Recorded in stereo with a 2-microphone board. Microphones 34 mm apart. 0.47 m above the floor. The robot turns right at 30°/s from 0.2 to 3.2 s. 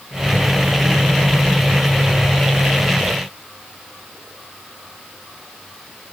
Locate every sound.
Only background noise.